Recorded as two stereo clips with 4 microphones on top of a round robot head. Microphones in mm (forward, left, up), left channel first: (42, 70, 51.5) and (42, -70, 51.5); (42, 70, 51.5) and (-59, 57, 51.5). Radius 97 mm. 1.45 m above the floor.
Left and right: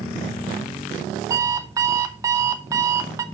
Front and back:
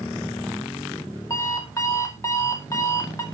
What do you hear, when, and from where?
1.3 s an alarm clock: 45° right, 0.5 m